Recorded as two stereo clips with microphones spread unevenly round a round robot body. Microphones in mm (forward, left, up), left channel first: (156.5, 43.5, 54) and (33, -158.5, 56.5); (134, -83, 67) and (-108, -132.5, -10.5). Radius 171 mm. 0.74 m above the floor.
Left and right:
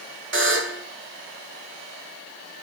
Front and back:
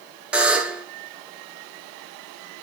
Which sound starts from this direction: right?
A buzzer, at 0.3 s.